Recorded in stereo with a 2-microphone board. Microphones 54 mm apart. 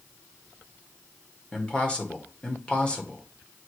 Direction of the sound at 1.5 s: 20° left (ahead or behind).